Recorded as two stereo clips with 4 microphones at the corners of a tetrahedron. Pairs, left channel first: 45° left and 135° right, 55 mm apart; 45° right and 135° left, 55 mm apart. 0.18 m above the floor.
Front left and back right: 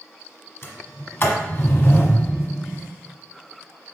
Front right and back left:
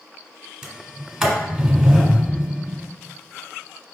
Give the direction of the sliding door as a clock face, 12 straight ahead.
10 o'clock.